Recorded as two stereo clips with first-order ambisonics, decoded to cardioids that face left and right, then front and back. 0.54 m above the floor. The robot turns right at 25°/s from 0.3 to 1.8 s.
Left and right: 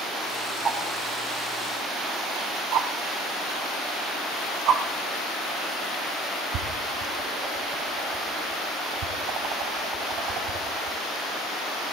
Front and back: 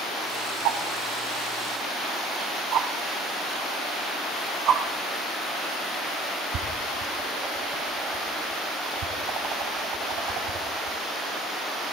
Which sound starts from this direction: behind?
A whoosh, at 0.7 s.